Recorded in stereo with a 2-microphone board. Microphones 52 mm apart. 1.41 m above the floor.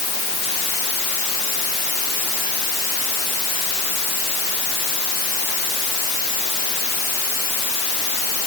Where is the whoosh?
I don't hear a whoosh.